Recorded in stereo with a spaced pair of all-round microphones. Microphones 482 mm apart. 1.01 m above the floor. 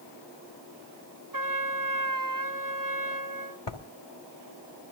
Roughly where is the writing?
Left.